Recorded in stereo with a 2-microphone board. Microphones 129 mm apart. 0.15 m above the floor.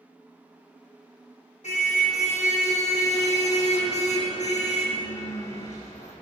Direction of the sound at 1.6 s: 70° left (ahead or behind).